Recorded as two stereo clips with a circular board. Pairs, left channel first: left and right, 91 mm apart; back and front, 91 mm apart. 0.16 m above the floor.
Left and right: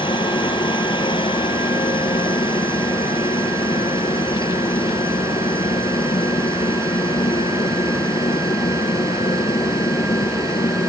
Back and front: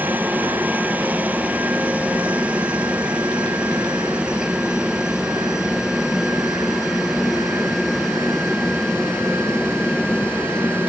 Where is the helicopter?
70° left; by 10.9 s 100° left.